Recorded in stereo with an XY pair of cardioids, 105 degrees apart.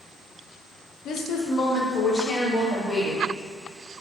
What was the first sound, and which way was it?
A woman speaking, 70° left.